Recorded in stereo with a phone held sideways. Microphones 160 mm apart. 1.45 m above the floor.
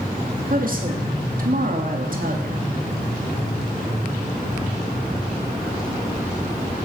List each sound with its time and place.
0.5 s a woman speaking: 60° right (ahead or behind), 2.5 m